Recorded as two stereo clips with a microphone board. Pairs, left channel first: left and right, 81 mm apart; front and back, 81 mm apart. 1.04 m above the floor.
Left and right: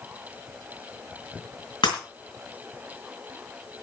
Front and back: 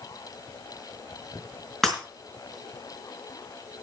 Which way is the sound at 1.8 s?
85° left.